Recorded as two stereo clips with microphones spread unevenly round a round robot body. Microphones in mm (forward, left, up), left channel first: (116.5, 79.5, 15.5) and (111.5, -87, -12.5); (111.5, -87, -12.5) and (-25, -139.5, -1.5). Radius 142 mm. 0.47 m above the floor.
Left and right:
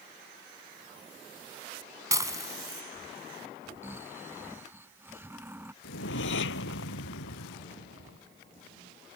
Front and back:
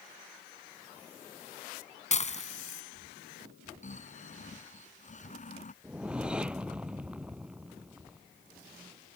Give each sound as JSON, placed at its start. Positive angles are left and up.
{"t": 2.1, "sound": "dishes clattering", "azimuth_deg": -20}
{"t": 3.8, "sound": "snoring", "azimuth_deg": -15}
{"t": 5.8, "sound": "a whoosh", "azimuth_deg": 115}